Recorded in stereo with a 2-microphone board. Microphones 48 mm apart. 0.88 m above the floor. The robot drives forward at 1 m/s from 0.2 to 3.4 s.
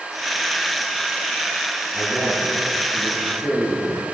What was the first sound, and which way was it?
A man speaking, centre (ahead or behind).